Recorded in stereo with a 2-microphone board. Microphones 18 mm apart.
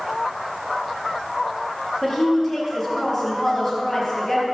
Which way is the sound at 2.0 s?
5° left (ahead or behind).